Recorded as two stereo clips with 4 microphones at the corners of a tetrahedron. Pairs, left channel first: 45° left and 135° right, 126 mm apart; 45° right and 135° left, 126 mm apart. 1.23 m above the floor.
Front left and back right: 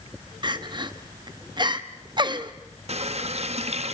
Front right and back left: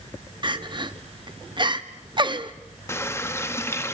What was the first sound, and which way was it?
Crying, straight behind.